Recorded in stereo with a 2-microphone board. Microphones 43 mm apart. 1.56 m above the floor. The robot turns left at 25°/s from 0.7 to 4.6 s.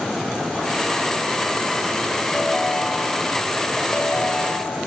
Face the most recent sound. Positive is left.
turn(degrees=125)